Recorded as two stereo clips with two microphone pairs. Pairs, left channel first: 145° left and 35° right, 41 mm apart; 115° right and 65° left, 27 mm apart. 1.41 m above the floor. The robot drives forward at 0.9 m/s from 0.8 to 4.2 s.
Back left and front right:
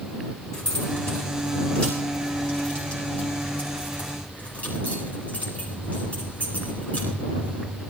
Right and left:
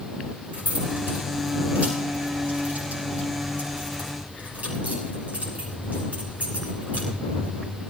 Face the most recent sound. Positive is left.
turn(degrees=90)